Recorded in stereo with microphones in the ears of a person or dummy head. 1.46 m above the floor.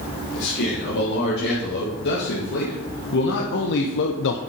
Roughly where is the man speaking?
Left.